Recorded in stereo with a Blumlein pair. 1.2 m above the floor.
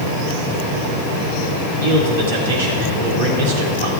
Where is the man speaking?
55° right, 3 m.